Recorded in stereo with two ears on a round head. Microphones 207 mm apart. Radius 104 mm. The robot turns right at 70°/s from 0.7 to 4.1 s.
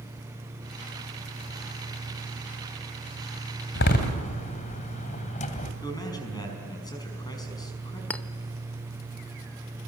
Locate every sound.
3.8 s a door slam: 55° left (ahead or behind), 2.5 m; by 5.7 s 35° left (ahead or behind), 2.5 m
5.8 s a man speaking: 20° left (ahead or behind), 5.5 m
8.1 s a clink: 5° left (ahead or behind), 0.8 m